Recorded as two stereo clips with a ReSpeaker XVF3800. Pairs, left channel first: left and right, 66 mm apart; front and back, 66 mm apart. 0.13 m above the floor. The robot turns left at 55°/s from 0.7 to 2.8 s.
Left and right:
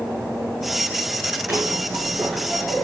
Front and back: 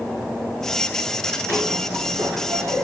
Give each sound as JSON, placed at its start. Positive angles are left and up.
{"t": 1.5, "sound": "a zipper", "azimuth_deg": -135, "distance_m": 4.0}